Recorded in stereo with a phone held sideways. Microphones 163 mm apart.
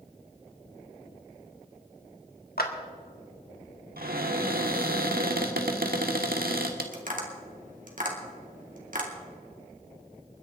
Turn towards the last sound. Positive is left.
turn(degrees=-60)  # may be behind; listen again after turning